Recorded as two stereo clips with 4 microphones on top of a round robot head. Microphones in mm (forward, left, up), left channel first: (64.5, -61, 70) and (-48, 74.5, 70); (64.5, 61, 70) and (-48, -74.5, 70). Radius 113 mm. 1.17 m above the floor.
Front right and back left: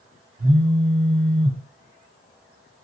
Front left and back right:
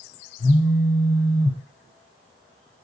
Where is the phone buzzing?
90° left, 1.5 m.